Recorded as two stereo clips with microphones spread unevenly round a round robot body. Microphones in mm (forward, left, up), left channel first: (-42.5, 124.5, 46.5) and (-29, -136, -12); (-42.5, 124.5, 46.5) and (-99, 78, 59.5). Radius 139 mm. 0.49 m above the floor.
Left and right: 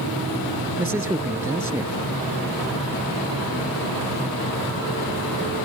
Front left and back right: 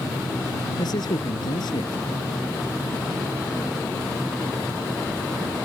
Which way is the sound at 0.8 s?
5° right.